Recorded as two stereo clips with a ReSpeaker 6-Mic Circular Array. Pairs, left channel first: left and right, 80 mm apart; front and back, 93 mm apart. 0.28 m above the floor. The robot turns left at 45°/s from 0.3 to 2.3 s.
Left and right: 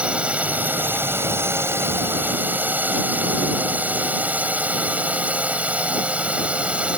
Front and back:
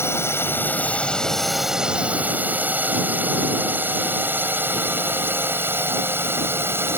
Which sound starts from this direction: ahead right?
A drone, at 0.0 s.